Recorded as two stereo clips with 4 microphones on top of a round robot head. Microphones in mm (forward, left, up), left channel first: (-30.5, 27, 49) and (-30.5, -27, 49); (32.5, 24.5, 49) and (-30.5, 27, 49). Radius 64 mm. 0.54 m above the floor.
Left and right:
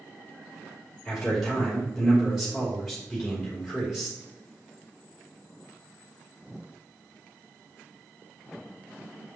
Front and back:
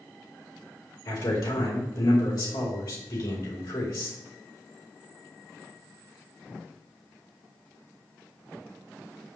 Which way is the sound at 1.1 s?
5° right.